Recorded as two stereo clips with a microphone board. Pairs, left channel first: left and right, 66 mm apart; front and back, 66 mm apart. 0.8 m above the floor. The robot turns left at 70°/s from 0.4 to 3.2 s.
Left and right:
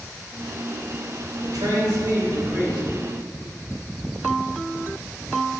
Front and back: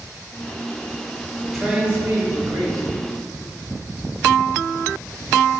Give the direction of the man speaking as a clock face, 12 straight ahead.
3 o'clock.